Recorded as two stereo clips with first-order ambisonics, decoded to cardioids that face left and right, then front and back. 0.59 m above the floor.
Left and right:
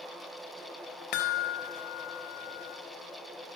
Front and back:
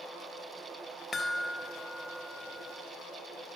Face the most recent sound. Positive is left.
turn(degrees=75)